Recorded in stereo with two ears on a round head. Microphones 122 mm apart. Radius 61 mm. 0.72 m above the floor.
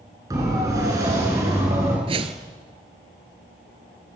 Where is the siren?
25° right (ahead or behind), 9 m; by 2.0 s 20° right (ahead or behind), 9.5 m.